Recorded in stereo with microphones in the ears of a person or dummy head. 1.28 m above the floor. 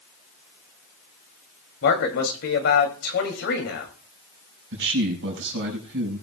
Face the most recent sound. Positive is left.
turn(degrees=-65)  # may be behind; listen again after turning